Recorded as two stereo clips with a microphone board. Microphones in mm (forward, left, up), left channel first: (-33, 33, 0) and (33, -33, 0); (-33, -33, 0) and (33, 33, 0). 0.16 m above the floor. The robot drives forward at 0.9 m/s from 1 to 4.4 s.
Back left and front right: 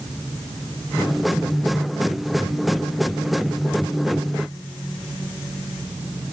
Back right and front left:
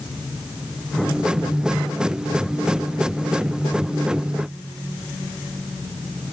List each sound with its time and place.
Only background noise.